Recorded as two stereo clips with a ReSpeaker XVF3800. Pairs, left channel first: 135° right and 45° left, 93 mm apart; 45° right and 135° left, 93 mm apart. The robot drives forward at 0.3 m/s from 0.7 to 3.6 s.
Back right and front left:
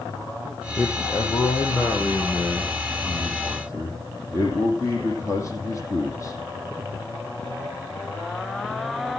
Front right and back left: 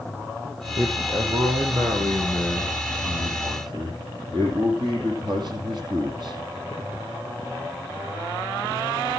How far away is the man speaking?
About 5.5 m.